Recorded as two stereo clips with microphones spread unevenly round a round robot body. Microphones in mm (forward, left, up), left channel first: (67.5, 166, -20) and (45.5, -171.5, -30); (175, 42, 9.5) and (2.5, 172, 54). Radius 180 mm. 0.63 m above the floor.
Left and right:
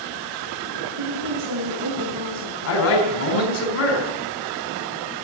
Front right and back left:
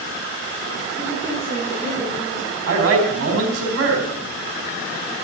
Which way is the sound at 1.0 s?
115° right.